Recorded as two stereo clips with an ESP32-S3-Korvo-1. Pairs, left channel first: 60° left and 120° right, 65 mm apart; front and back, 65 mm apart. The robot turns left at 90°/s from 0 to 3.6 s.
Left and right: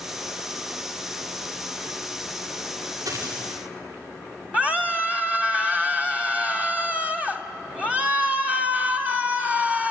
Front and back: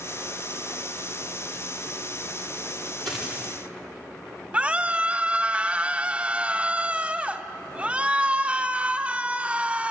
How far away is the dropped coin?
About 10 m.